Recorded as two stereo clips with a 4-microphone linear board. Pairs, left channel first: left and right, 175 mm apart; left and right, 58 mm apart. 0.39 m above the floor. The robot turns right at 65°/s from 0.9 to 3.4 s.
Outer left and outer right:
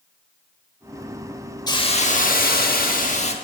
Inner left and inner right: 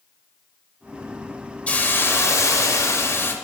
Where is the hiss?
30° left, 0.8 m; by 3.3 s 135° left, 0.8 m.